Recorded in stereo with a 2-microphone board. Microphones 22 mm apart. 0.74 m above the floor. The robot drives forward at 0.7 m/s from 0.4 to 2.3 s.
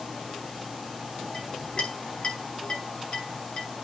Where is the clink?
40° left (ahead or behind), 3.5 m; by 3.7 s 35° left (ahead or behind), 4 m.